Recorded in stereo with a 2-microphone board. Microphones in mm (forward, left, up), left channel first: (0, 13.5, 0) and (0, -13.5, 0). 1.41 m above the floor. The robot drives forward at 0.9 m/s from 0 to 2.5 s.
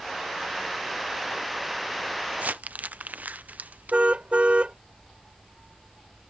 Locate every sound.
2.3 s crumpling: 70° right (ahead or behind); by 4.0 s 80° right
3.9 s a car horn: 50° right (ahead or behind)